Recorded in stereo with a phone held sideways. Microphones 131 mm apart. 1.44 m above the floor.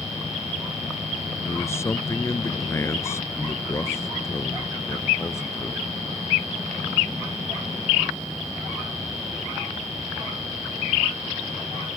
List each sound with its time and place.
1.4 s a man speaking: 20° left (ahead or behind)